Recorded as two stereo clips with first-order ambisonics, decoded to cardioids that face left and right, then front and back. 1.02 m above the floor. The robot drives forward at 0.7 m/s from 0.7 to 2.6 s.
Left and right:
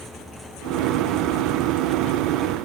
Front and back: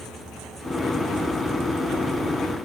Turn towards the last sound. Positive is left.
No sound to turn to.